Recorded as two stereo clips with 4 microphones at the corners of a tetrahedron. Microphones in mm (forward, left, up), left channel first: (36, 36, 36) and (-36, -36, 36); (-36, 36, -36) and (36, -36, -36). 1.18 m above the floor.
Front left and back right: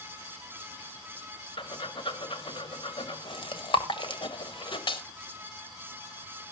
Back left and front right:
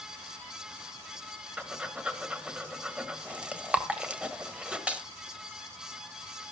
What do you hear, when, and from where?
1.6 s breathing: 30° left, 1.4 m